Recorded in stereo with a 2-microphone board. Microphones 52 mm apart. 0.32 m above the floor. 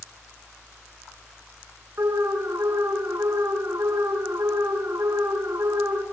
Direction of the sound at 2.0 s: 65° right (ahead or behind).